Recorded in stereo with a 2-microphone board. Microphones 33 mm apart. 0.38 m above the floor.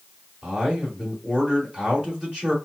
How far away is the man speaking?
About 1.5 m.